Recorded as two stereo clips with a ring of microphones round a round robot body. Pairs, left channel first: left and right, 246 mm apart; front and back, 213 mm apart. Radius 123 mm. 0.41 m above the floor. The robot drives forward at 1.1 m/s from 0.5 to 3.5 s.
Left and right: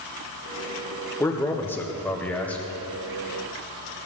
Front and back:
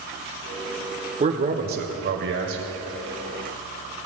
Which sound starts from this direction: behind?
A man speaking, at 1.2 s.